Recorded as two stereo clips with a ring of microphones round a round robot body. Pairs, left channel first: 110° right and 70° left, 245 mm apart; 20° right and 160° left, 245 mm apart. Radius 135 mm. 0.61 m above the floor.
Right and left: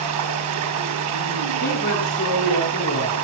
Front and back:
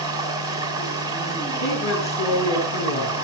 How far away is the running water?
About 5 m.